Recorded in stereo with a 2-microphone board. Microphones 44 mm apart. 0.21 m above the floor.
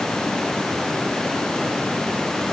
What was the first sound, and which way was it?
Only background noise.